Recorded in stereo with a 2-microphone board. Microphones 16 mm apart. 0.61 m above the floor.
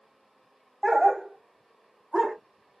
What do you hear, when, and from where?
0.8 s a dog barking: 35° right (ahead or behind), 1.2 m; by 2.4 s 40° right (ahead or behind), 2 m